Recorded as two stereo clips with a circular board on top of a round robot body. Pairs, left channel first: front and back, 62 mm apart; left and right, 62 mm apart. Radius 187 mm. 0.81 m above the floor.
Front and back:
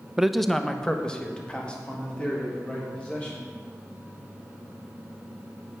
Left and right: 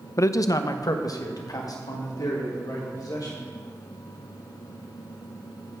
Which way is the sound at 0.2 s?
100° left.